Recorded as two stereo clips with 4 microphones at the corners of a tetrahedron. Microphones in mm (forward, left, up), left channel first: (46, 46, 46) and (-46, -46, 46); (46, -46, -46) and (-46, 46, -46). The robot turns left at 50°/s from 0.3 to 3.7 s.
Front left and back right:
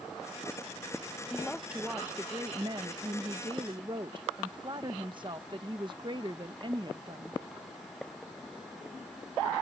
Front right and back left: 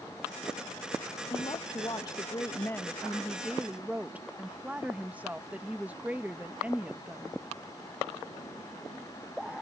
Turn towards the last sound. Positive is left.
turn(degrees=-155)